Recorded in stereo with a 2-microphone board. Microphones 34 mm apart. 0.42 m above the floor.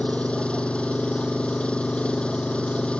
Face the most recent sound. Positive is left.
turn(degrees=35)  # may be behind; listen again after turning